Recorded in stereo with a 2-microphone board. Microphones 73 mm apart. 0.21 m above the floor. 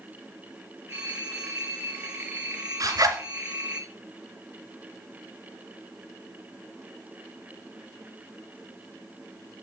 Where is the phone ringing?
25° right (ahead or behind), 3 m.